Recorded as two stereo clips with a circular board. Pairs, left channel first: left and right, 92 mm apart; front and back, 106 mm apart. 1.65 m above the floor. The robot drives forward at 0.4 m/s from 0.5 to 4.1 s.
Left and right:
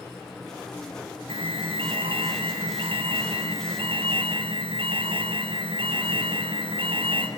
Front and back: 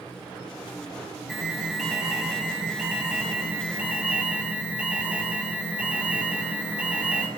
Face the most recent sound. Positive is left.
turn(degrees=-100)